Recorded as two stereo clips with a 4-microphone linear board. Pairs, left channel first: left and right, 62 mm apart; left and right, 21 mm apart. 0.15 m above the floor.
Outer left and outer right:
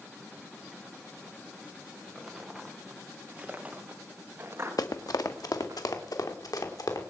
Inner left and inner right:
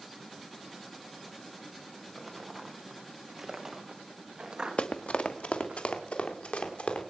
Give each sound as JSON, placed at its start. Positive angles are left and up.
{"t": 2.1, "sound": "footsteps", "side_deg": 0, "distance_m": 3.5}
{"t": 4.8, "sound": "running footsteps", "side_deg": 80, "distance_m": 1.2}